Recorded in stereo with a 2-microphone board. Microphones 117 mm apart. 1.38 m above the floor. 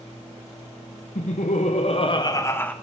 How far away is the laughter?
About 0.9 m.